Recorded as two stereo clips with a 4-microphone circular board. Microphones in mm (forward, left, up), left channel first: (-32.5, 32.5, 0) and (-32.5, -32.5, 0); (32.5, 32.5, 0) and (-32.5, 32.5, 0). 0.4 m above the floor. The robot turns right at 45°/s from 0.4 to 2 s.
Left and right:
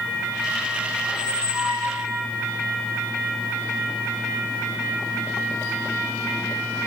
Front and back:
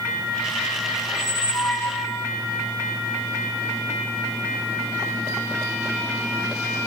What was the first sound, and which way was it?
A squeak, 95° right.